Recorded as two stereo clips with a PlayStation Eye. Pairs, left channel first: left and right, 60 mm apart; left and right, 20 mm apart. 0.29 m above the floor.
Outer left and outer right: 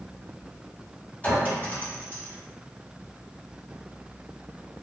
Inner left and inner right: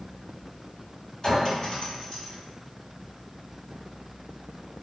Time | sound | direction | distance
1.2 | a clink | 30° left (ahead or behind) | 1.4 m